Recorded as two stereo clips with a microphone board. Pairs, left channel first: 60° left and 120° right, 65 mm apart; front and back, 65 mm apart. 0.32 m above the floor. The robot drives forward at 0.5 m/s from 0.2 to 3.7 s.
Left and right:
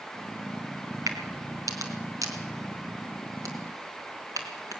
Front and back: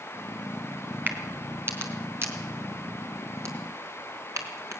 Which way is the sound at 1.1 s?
125° right.